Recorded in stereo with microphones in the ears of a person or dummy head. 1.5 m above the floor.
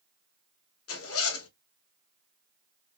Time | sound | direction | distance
0.9 | a zipper | 75° left (ahead or behind) | 1.1 m